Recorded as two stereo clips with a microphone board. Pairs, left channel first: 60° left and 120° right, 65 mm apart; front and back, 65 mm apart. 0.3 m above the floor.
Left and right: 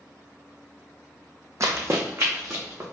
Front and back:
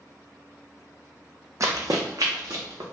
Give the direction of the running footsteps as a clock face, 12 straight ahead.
5 o'clock.